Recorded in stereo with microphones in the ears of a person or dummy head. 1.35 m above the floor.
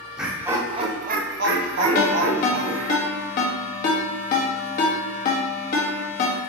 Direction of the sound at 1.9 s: 55° left (ahead or behind).